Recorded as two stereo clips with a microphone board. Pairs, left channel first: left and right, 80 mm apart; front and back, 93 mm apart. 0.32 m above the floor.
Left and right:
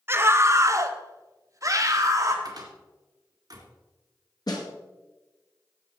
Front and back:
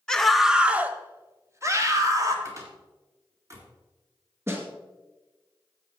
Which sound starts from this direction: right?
A scream, at 0.1 s.